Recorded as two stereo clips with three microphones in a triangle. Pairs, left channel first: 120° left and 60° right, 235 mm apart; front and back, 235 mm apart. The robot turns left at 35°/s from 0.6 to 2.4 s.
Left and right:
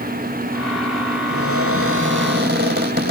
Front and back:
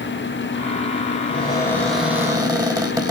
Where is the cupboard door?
65° right, 4.5 m; by 3.1 s 105° right, 4.5 m.